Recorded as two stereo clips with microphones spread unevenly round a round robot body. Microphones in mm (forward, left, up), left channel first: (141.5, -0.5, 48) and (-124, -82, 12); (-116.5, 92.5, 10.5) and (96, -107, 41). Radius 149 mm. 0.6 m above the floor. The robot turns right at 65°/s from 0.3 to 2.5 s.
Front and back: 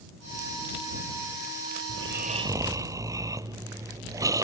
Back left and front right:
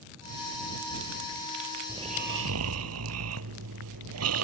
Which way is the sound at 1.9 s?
125° right.